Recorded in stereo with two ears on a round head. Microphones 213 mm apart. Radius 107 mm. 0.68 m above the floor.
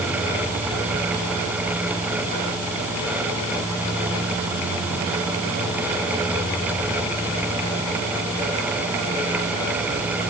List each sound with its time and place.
Only background noise.